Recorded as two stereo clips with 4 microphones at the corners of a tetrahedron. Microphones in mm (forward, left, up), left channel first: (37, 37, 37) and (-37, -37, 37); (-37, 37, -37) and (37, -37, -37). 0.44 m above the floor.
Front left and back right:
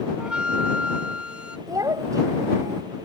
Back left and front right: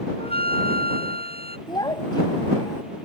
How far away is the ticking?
No ticking in this recording.